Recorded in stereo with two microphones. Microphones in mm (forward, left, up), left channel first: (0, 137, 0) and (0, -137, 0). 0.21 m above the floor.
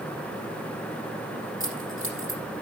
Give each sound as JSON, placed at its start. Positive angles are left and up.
{"t": 1.6, "sound": "keys jangling", "side_deg": -50, "distance_m": 5.0}